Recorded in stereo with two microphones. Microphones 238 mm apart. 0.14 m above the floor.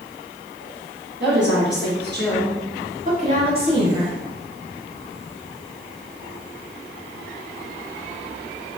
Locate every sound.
1.2 s a woman speaking: 60° right (ahead or behind), 2.0 m; by 4.2 s 15° right (ahead or behind), 1.7 m